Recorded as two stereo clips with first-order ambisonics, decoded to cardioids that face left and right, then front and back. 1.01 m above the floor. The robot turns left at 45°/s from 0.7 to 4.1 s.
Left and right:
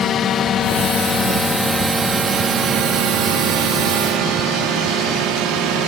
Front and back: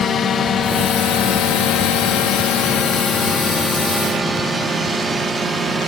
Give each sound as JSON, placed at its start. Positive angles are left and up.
{"t": 0.0, "sound": "a drone", "azimuth_deg": 50}